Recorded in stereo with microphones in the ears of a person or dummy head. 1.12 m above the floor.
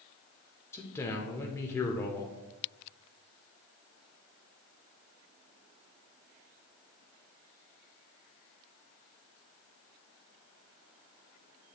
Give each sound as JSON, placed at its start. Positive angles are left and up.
{"t": 0.7, "sound": "a man speaking", "side_deg": 15, "distance_m": 0.9}